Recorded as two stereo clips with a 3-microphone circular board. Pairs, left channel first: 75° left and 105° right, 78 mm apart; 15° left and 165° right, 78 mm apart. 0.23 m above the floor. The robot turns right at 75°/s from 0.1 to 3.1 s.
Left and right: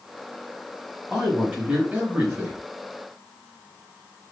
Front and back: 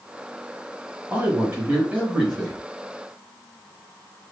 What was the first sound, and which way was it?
A man speaking, 175° right.